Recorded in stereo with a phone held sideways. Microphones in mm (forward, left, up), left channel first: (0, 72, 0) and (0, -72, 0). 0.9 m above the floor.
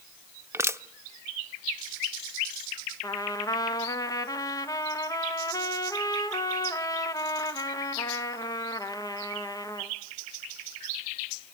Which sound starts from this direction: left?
A trumpet, at 3.0 s.